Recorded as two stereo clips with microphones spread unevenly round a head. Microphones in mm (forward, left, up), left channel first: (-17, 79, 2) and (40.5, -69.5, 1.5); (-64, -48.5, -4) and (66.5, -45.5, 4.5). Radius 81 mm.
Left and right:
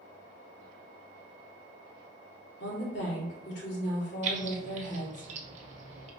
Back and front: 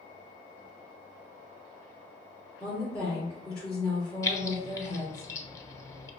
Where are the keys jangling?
110° right, 0.7 m.